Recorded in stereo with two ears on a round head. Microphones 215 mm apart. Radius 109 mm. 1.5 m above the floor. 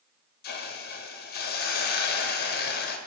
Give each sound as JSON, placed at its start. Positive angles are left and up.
{"t": 0.4, "sound": "a hiss", "side_deg": 40, "distance_m": 0.5}